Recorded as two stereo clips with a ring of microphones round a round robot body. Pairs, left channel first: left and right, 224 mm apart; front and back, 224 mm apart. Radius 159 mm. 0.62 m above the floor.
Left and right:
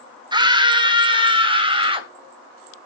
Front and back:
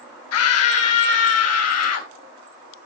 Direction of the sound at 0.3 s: 20° right.